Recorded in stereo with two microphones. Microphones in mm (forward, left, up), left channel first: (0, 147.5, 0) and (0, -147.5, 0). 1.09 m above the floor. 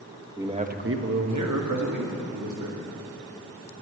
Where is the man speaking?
10° right (ahead or behind), 1.1 m; by 2.8 s 80° right, 2.5 m.